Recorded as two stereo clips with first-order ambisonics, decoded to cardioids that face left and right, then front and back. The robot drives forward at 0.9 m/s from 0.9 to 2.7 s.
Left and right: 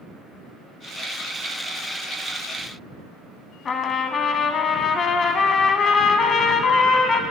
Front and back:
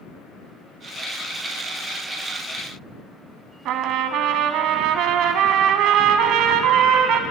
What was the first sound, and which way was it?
A trumpet, 150° left.